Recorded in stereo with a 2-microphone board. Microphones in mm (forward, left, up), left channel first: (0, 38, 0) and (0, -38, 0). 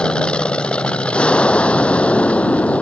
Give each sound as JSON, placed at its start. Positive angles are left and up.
{"t": 0.0, "sound": "an aircraft", "side_deg": 15}